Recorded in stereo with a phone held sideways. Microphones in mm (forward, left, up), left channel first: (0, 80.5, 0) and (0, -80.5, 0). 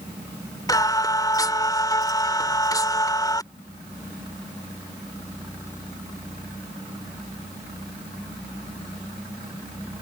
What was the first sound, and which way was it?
Singing, 20° left (ahead or behind).